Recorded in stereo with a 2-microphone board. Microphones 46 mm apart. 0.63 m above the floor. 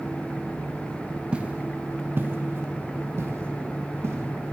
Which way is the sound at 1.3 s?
25° right (ahead or behind).